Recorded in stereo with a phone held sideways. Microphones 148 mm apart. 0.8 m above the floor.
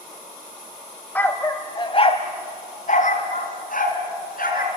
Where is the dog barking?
10° left (ahead or behind), 1.5 m; by 4.7 s 80° left, 3.5 m.